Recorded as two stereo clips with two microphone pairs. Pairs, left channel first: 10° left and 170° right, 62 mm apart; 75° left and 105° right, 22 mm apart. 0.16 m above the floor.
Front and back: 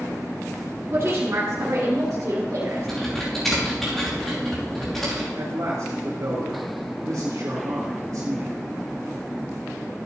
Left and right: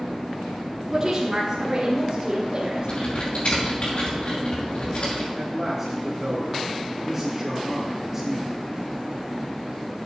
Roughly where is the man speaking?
Behind.